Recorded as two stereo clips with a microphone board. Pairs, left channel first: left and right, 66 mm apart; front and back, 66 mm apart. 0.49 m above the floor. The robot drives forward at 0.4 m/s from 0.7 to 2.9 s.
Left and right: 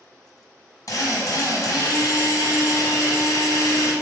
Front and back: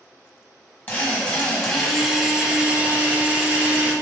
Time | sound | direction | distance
0.9 | a drill | 65° left | 1.1 m